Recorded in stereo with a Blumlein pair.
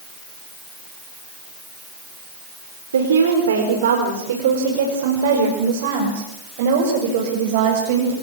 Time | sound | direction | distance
2.9 | a woman speaking | 65° right | 4.5 m